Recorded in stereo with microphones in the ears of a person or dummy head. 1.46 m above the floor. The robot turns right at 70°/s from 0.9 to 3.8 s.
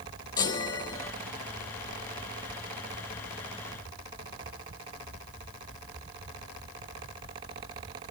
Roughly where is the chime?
Centre.